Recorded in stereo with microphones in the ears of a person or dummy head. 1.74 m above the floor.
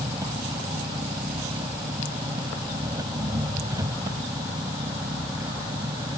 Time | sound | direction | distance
0.0 | an engine running | 20° right (ahead or behind) | ?